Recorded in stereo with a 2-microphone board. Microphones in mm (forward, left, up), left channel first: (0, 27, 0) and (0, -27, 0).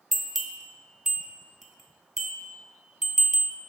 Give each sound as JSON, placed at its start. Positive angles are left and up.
{"t": 0.1, "sound": "a bell", "side_deg": -5, "distance_m": 0.7}